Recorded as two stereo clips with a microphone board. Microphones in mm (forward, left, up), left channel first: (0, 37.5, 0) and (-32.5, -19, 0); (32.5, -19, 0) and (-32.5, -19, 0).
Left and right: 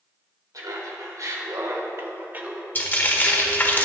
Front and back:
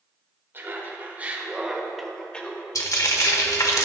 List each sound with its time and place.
0.5 s laughter: 130° right, 3.5 m; by 2.6 s 55° right, 2.0 m
2.8 s frying: 5° left, 1.2 m